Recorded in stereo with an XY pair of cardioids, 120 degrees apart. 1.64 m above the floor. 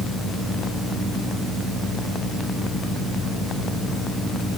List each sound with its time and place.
Only background noise.